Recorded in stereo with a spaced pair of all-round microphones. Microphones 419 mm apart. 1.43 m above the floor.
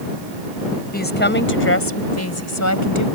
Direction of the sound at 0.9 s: 20° left (ahead or behind).